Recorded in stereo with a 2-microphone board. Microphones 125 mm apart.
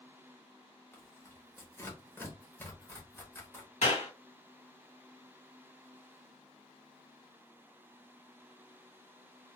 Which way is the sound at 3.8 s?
75° left (ahead or behind).